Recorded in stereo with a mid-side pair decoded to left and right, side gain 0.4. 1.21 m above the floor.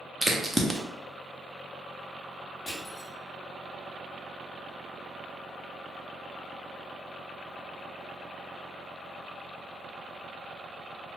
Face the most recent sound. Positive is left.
turn(degrees=20)